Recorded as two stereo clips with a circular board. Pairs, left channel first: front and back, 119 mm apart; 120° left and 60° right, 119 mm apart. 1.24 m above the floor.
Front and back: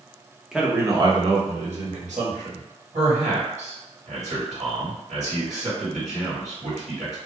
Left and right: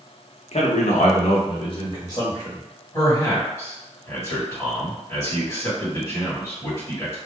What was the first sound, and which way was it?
A man speaking, 95° left.